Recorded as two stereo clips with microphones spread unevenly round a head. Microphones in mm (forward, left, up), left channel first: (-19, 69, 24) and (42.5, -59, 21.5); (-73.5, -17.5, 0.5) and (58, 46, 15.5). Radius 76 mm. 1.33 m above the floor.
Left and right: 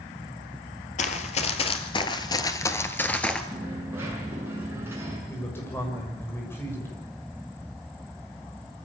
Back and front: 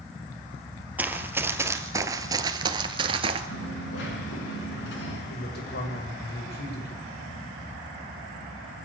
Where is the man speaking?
170° right, 6.5 m.